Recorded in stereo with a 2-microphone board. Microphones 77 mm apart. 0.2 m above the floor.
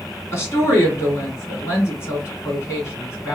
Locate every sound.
0.3 s a woman speaking: 35° left (ahead or behind), 2 m